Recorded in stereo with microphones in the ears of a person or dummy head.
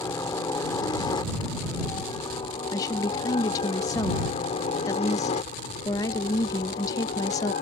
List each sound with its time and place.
0.0 s a helicopter: 15° left (ahead or behind); by 7.6 s 40° left (ahead or behind)
2.7 s a woman speaking: 20° left (ahead or behind)